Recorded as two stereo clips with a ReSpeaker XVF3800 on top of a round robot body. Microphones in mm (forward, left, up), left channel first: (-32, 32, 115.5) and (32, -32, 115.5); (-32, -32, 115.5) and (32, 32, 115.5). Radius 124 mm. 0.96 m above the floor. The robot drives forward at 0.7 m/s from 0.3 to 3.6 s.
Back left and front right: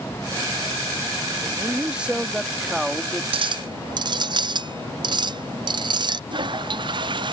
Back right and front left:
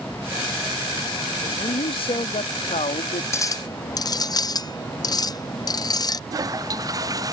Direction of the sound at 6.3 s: 10° right.